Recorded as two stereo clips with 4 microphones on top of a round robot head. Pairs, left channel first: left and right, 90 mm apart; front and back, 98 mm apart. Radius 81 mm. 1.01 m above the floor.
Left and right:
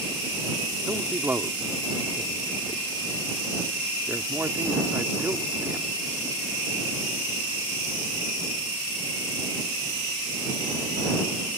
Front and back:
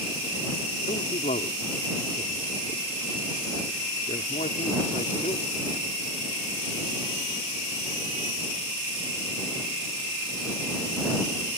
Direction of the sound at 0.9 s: 25° right.